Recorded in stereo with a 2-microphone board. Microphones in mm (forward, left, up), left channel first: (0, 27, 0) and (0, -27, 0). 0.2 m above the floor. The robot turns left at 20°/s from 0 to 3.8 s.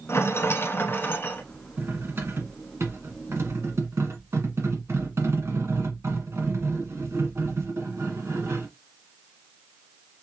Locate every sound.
0.1 s a rattle: 55° left (ahead or behind), 0.8 m; by 1.4 s 35° left (ahead or behind), 0.8 m
1.8 s cutlery clinking: 50° right, 1.4 m; by 8.7 s 90° right, 1.4 m